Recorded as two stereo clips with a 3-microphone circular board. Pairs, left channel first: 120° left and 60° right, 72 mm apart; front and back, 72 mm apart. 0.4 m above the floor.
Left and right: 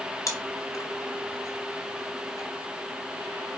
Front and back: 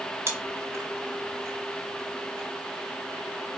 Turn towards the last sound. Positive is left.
turn(degrees=135)